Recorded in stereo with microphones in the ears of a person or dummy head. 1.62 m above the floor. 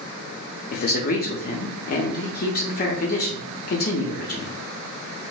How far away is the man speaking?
About 0.6 m.